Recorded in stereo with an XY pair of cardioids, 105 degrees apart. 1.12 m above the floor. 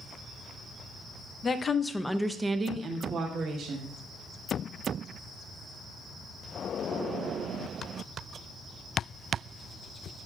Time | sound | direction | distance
1.4 | a woman speaking | 40° left | 0.9 m